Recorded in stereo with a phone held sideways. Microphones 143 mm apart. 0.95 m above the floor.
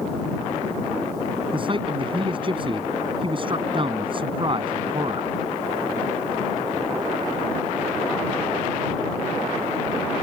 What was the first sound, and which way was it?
A man speaking, 35° right (ahead or behind).